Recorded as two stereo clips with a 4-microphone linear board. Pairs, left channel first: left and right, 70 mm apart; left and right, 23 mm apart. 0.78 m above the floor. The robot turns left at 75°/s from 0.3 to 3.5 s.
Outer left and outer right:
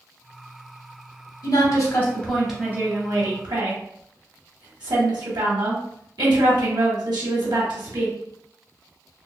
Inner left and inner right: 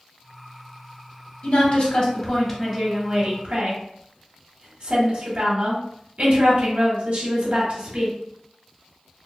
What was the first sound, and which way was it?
A woman speaking, 75° left.